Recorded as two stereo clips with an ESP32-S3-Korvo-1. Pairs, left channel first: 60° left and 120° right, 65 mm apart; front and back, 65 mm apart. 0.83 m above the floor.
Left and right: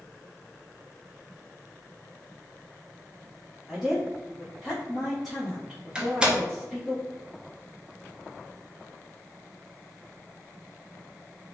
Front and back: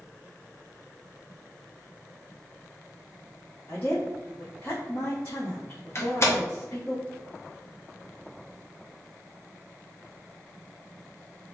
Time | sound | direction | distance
3.7 | a woman speaking | 35° right | 1.1 m
6.0 | a door slam | 45° right | 0.6 m